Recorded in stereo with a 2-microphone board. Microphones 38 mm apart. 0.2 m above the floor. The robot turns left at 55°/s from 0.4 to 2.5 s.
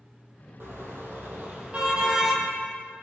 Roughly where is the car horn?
Right.